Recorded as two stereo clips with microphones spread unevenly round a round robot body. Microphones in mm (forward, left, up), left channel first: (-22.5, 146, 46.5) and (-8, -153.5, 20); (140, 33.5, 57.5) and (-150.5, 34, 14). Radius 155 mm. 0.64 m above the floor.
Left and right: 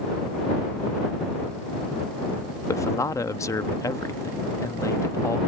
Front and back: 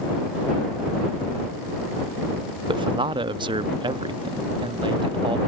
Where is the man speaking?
170° left.